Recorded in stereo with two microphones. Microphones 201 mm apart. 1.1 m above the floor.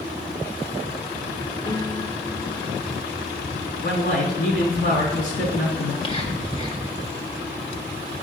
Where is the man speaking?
60° left (ahead or behind), 3 m.